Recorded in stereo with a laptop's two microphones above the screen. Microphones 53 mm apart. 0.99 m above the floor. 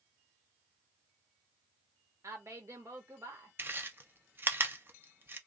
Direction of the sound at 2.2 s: 70° right (ahead or behind).